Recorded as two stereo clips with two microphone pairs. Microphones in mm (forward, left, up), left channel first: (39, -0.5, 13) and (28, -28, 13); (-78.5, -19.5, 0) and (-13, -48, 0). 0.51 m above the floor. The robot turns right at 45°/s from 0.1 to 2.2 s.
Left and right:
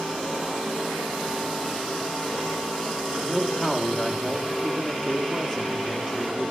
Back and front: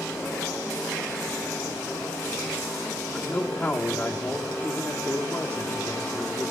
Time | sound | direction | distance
3.1 | a man speaking | 110° left | 1.2 m